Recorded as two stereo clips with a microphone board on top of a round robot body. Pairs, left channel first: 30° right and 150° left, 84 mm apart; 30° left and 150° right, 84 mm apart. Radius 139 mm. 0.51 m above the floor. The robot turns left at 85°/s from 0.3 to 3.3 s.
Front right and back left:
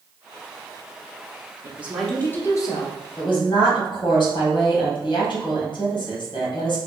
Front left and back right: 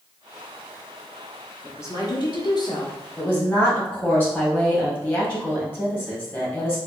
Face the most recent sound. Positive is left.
turn(degrees=-35)